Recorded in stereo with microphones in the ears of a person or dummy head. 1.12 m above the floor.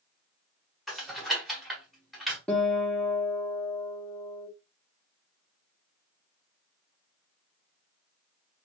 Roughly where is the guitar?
Centre.